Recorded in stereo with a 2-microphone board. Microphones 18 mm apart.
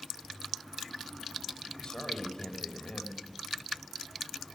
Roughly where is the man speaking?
Left.